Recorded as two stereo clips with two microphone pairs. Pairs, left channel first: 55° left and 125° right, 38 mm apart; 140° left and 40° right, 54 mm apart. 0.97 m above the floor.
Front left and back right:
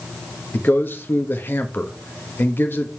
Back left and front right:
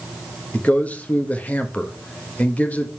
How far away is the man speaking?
About 1.1 m.